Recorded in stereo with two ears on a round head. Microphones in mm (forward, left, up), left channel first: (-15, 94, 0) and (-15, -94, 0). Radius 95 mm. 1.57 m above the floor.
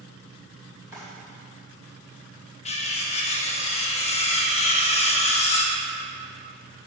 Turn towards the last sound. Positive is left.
turn(degrees=30)  # may be behind; listen again after turning